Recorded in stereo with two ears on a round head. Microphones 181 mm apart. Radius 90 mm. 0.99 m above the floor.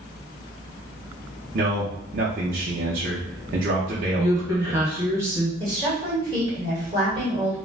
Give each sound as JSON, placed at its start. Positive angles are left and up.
{"t": 1.5, "sound": "a man speaking", "side_deg": -45, "distance_m": 0.6}
{"t": 4.2, "sound": "a woman speaking", "side_deg": -15, "distance_m": 1.1}
{"t": 5.6, "sound": "a woman speaking", "side_deg": -25, "distance_m": 1.5}